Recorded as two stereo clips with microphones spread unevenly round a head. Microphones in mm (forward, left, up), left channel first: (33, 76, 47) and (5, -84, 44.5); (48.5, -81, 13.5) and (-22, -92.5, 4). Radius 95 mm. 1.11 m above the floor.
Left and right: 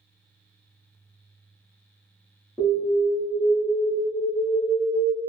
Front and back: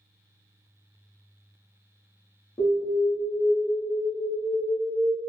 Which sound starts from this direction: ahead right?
An alarm, at 2.6 s.